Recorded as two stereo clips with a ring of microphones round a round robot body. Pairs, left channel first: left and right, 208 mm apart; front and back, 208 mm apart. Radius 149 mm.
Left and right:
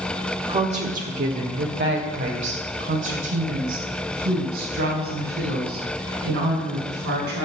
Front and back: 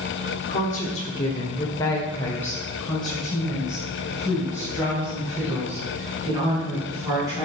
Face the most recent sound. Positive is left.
turn(degrees=-105)